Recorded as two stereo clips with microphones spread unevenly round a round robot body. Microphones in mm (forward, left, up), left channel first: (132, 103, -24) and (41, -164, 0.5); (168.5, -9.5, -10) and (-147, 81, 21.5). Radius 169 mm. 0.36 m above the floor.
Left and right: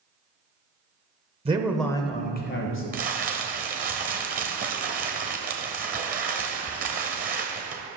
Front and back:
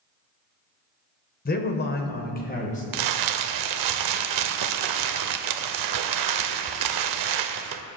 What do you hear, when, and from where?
1.4 s a man speaking: 45° right, 1.2 m; by 2.8 s 45° left, 1.9 m
2.9 s crumpling: 175° right, 0.6 m